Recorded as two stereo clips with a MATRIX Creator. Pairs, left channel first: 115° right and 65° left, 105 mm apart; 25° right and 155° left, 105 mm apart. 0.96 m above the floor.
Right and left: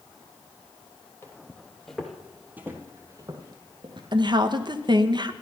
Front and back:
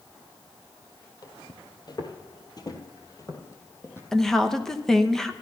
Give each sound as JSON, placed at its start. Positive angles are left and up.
{"t": 1.2, "sound": "footsteps", "azimuth_deg": -55, "distance_m": 1.3}
{"t": 4.1, "sound": "a woman speaking", "azimuth_deg": 60, "distance_m": 0.8}